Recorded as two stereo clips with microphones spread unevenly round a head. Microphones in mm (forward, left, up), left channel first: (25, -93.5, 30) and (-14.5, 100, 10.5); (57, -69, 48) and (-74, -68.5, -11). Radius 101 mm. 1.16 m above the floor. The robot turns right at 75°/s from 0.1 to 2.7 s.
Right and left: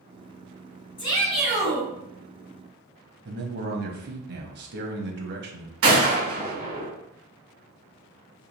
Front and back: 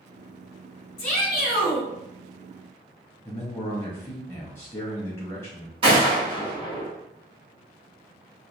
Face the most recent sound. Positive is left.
turn(degrees=125)